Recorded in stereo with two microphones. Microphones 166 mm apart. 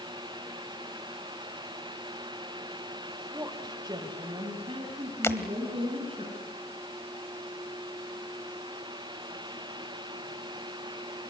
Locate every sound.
3.3 s a woman speaking: 20° right (ahead or behind), 1.5 m; by 6.2 s 35° right (ahead or behind), 6 m
5.2 s breaking glass: 15° left (ahead or behind), 1.3 m